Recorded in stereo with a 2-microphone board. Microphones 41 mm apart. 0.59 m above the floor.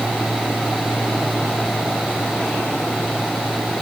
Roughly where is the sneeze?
I don't hear a sneeze.